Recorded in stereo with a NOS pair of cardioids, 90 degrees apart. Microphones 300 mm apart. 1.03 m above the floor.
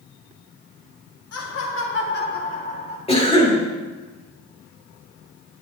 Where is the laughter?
50° left, 1.7 m; by 3.0 s 20° left, 1.7 m.